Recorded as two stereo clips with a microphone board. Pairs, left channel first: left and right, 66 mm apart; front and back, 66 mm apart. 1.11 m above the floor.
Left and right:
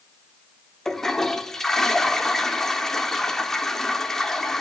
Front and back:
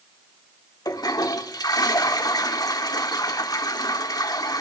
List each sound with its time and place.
0.8 s a toilet flushing: 5° left, 1.5 m